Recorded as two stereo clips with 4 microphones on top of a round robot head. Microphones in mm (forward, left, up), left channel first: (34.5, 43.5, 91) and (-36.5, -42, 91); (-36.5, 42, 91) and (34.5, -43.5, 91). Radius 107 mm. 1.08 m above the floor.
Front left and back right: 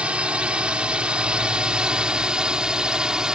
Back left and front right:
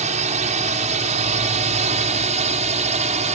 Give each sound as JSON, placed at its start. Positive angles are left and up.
{"t": 0.0, "sound": "a drone", "azimuth_deg": -50}